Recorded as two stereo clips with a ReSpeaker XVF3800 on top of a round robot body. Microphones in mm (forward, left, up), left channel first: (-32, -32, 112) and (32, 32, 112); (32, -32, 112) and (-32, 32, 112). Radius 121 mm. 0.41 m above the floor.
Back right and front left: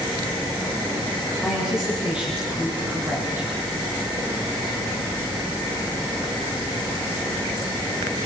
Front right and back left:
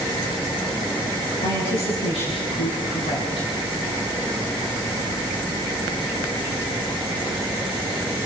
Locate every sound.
1.4 s a woman speaking: 40° right, 6 m; by 3.5 s 15° right, 5 m